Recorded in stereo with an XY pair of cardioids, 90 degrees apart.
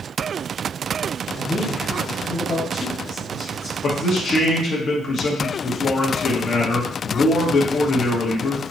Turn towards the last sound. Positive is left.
turn(degrees=65)